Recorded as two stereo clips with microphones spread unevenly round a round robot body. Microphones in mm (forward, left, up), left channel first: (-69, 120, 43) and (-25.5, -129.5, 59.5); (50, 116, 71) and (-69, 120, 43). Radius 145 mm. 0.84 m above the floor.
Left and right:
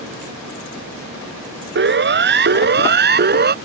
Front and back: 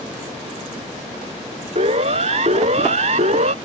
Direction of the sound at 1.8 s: 125° right.